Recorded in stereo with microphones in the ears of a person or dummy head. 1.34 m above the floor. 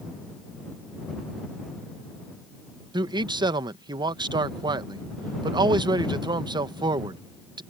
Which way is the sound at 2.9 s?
25° right (ahead or behind).